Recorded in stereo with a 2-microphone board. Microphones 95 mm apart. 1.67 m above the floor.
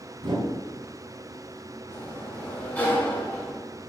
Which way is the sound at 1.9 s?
20° left (ahead or behind).